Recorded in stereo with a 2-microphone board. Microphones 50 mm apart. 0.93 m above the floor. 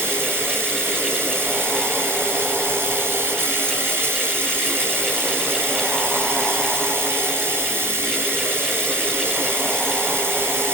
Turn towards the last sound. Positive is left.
turn(degrees=-50)  # may be behind; listen again after turning